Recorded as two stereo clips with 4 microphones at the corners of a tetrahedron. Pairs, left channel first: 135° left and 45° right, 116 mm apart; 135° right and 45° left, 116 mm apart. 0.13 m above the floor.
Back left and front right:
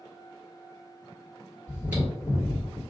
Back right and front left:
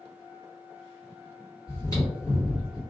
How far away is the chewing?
About 1.7 m.